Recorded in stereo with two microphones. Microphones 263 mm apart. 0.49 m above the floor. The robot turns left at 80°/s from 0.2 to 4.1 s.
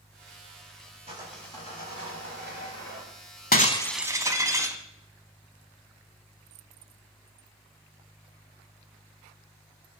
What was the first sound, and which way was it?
Sawing, 155° right.